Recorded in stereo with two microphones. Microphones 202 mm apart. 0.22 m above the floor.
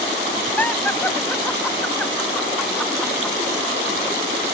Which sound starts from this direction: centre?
Laughter, at 0.6 s.